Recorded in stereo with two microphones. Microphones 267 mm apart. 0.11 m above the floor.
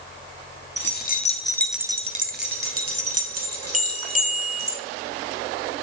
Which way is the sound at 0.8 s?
45° left (ahead or behind).